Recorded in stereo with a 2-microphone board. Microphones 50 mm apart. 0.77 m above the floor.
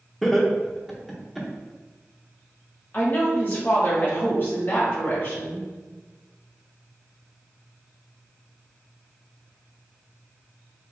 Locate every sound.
0.2 s laughter: centre (ahead or behind), 1.0 m
2.9 s a woman speaking: 40° left (ahead or behind), 1.3 m